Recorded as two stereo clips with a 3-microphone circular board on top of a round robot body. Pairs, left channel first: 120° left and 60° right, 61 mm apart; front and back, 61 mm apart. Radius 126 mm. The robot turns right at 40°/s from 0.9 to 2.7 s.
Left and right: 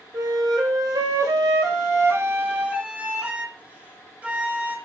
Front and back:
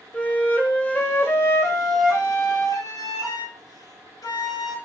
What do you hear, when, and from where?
0.1 s a flute: 65° right, 1.7 m; by 4.8 s 5° left, 1.7 m